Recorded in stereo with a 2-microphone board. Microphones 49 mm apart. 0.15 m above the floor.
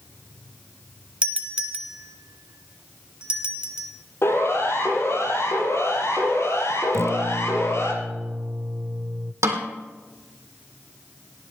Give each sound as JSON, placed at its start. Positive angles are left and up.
{"t": 1.2, "sound": "a doorbell", "side_deg": -20, "distance_m": 1.9}
{"t": 4.2, "sound": "a siren", "side_deg": 60, "distance_m": 5.5}
{"t": 6.9, "sound": "a guitar", "side_deg": -65, "distance_m": 0.7}
{"t": 9.4, "sound": "a snare drum", "side_deg": -80, "distance_m": 3.5}